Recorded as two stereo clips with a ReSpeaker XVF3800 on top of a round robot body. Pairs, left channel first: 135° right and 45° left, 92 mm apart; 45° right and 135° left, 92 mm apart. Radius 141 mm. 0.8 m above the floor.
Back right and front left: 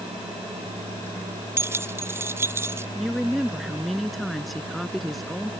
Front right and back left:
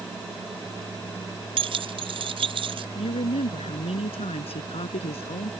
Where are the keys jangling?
110° left.